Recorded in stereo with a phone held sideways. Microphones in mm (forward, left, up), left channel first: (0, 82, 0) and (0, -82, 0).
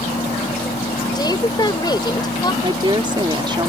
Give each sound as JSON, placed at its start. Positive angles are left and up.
{"t": 0.0, "sound": "a fan", "side_deg": 40}
{"t": 1.1, "sound": "a woman speaking", "side_deg": 25}
{"t": 2.6, "sound": "a woman speaking", "side_deg": -30}